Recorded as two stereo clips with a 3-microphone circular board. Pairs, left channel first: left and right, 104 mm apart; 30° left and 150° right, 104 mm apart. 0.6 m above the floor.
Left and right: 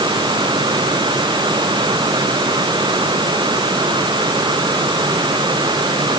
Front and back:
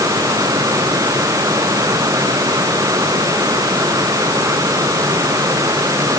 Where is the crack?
No crack in this recording.